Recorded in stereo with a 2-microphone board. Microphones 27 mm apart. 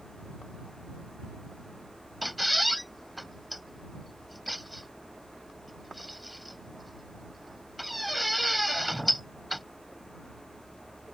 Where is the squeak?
5° left (ahead or behind).